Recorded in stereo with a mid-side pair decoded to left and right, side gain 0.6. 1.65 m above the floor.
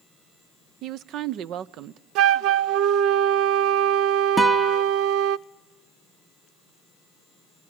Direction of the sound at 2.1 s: 70° right.